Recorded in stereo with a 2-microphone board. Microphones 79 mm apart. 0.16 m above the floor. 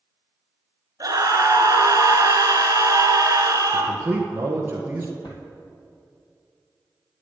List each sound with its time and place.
1.0 s a scream: 50° right (ahead or behind), 2 m
3.7 s a man speaking: 25° right (ahead or behind), 2.5 m
5.2 s a drawer: 75° left (ahead or behind), 2 m